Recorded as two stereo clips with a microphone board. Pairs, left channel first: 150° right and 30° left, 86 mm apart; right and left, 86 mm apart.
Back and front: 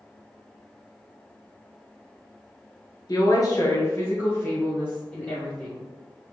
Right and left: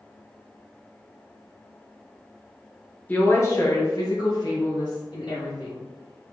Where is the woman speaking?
150° right, 1.5 m; by 5.8 s 75° right, 3.5 m.